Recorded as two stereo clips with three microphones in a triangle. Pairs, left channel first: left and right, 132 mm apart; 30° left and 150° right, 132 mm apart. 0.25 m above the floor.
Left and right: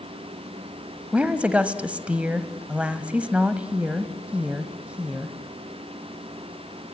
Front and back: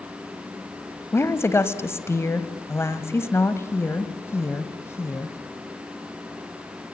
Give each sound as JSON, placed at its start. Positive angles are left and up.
{"t": 1.1, "sound": "a woman speaking", "azimuth_deg": -20, "distance_m": 1.4}